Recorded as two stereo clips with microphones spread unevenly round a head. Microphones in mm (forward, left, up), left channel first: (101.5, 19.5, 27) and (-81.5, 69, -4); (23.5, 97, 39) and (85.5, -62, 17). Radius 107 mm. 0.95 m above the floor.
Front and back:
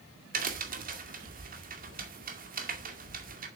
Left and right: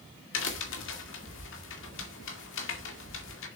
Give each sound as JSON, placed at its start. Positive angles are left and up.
{"t": 0.3, "sound": "a crack", "azimuth_deg": 125, "distance_m": 2.0}